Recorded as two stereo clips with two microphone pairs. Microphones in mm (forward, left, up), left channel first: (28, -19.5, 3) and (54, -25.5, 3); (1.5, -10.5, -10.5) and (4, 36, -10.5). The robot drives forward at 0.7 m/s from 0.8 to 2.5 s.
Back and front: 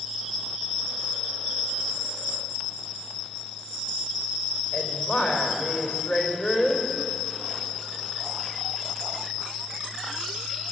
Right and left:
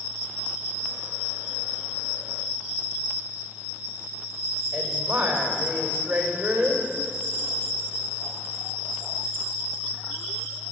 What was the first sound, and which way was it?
A woman speaking, 155° left.